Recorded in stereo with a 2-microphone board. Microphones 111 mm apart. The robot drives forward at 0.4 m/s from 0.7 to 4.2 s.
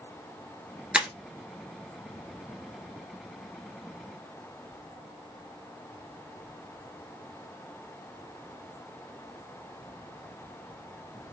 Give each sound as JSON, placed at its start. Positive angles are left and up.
{"t": 0.9, "sound": "breaking glass", "side_deg": -10, "distance_m": 0.8}